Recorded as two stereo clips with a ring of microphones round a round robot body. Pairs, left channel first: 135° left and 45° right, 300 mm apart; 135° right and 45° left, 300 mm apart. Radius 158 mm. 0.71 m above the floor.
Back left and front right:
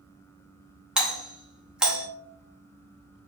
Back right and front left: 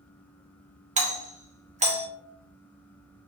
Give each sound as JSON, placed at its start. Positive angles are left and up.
{"t": 1.0, "sound": "a doorbell", "azimuth_deg": 40, "distance_m": 0.9}